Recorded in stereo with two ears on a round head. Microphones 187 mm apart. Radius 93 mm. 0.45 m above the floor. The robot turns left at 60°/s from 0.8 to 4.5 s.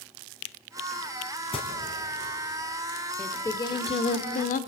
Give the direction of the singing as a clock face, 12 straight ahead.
6 o'clock.